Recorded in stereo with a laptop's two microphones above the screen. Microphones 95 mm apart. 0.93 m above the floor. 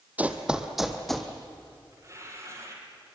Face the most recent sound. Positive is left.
turn(degrees=-35)  # may be behind; listen again after turning